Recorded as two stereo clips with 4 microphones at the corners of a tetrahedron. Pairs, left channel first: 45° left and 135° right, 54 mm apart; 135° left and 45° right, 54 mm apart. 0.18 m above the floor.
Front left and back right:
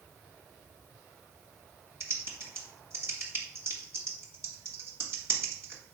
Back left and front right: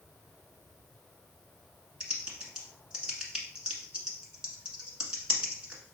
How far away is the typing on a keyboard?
About 1.3 m.